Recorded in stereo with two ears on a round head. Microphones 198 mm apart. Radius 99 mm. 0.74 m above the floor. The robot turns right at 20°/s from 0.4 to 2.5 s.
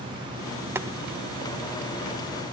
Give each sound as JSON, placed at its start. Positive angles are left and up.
{"t": 0.8, "sound": "boiling", "side_deg": -10, "distance_m": 0.6}